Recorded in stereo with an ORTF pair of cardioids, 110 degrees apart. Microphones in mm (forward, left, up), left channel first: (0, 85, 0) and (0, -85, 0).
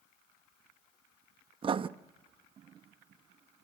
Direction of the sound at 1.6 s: 30° right.